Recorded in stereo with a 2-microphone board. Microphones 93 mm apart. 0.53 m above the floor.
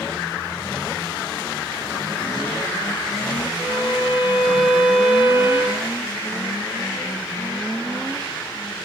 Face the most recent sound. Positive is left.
turn(degrees=80)